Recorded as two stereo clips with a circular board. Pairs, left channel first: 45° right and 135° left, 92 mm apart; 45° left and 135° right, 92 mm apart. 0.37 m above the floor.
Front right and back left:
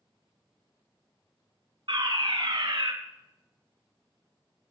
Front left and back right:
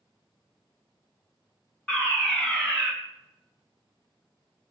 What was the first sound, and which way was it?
A fire alarm, 125° left.